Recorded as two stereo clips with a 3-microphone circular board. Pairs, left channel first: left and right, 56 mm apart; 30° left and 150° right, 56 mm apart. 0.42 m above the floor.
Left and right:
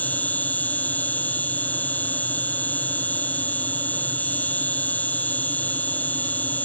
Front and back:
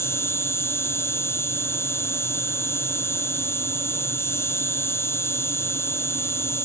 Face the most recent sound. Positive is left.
turn(degrees=40)